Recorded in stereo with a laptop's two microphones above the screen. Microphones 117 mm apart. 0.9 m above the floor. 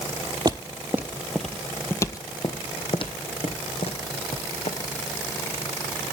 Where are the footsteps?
35° right (ahead or behind), 1.1 m; by 4.8 s 65° left (ahead or behind), 2.5 m.